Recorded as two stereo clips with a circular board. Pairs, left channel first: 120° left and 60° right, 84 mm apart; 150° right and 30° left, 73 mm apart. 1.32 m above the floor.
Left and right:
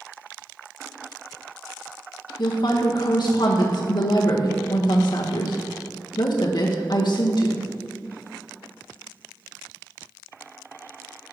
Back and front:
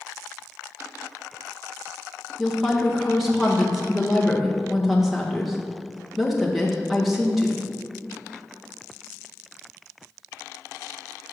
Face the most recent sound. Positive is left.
turn(degrees=120)